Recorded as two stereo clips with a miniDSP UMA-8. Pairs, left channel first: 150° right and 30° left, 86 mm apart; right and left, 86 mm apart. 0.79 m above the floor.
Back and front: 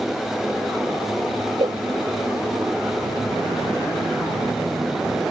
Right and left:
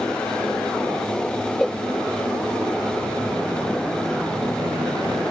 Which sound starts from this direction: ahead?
A cowbell, at 1.6 s.